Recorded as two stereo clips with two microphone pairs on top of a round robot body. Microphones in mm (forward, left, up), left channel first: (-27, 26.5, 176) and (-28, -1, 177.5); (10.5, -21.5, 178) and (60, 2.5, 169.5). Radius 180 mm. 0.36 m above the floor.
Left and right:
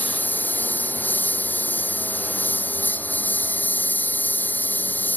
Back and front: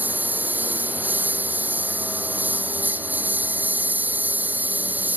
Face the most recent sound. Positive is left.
turn(degrees=85)